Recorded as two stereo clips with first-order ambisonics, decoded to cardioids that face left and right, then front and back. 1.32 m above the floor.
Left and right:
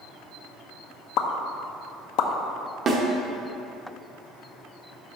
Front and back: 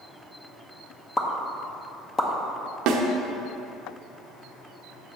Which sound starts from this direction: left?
A pop, at 1.2 s.